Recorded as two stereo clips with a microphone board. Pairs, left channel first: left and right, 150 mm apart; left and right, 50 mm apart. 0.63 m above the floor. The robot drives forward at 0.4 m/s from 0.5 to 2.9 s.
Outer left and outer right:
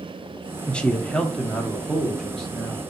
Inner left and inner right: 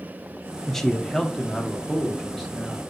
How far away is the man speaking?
About 0.6 m.